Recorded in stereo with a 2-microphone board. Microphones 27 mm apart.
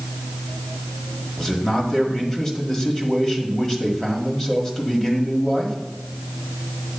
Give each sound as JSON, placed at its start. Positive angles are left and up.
{"t": 1.4, "sound": "a man speaking", "side_deg": 20, "distance_m": 1.4}